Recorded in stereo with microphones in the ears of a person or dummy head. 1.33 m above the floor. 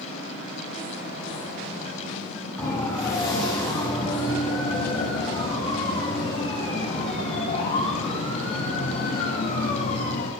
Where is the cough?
I don't hear a cough.